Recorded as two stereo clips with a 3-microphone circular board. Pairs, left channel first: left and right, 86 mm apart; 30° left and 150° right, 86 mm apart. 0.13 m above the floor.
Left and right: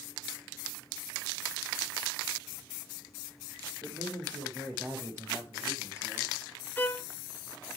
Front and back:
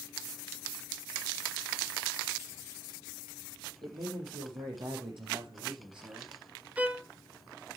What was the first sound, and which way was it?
A man speaking, 125° right.